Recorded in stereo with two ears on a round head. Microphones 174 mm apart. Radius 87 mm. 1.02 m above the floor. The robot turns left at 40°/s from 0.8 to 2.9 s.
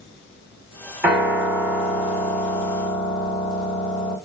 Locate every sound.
1.0 s a piano: 170° right, 2 m; by 4.2 s 115° left, 2 m